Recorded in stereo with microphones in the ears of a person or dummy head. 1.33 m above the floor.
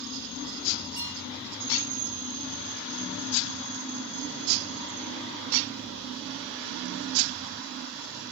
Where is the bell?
20° left (ahead or behind), 7.5 m.